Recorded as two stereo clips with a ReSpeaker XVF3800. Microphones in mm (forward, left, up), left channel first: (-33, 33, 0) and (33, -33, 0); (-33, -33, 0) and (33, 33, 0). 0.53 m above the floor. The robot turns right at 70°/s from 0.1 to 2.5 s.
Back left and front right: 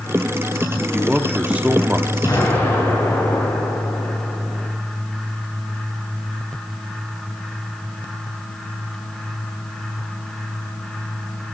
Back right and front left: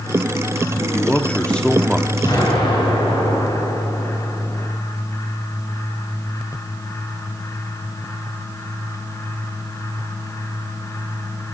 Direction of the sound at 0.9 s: 125° right.